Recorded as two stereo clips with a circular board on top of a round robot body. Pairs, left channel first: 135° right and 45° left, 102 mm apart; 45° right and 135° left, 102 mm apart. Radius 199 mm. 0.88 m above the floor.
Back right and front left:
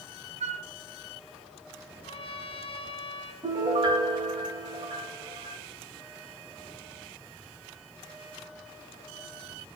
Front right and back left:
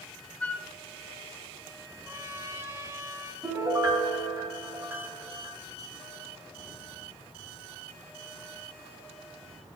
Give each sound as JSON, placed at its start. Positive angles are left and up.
{"t": 0.4, "sound": "a flute", "azimuth_deg": 35, "distance_m": 0.8}
{"t": 2.0, "sound": "a trumpet", "azimuth_deg": -160, "distance_m": 3.0}
{"t": 3.4, "sound": "a piano", "azimuth_deg": 70, "distance_m": 7.0}